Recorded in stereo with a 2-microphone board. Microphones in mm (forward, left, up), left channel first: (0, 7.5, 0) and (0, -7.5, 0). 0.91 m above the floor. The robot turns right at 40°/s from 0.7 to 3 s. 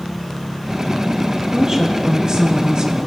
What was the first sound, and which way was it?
A woman speaking, 130° right.